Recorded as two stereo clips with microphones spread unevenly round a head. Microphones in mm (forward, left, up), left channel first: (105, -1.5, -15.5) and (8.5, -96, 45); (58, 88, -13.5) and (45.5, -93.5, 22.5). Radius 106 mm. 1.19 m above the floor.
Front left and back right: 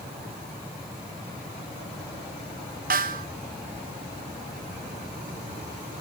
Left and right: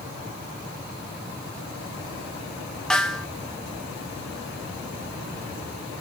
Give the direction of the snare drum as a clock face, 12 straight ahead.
6 o'clock.